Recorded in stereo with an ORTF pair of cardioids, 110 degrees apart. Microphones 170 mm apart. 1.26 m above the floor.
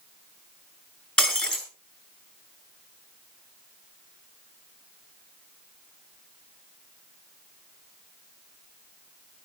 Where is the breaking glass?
5° left, 5.5 m.